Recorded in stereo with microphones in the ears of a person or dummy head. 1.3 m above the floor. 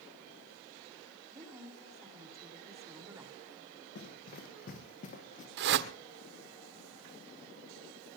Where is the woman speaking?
15° right (ahead or behind), 4 m.